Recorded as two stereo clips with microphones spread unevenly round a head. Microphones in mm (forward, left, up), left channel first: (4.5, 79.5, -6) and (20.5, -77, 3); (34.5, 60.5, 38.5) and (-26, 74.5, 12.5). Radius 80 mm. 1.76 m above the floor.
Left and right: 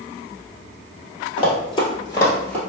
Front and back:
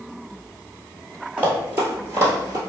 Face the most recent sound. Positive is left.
turn(degrees=175)